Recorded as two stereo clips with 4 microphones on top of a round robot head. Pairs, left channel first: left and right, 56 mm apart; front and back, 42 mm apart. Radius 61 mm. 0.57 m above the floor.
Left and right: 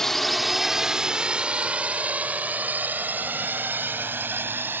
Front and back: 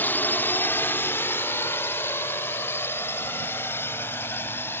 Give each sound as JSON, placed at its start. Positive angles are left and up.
{"t": 0.0, "sound": "a drone", "azimuth_deg": 10}